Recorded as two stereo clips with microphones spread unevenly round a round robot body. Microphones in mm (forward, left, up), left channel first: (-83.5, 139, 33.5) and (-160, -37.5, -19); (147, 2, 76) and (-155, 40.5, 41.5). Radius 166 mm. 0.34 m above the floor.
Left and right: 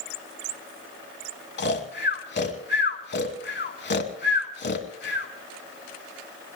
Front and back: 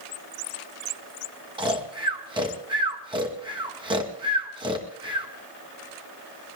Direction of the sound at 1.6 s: 100° left.